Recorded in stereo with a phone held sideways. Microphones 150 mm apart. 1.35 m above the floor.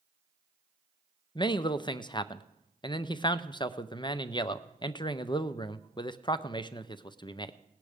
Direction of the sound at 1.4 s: 30° left (ahead or behind).